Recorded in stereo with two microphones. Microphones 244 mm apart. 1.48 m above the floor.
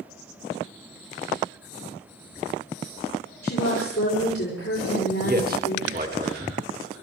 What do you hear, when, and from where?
3.4 s a woman speaking: 70° left (ahead or behind), 6.5 m
5.2 s a man speaking: 40° right (ahead or behind), 2 m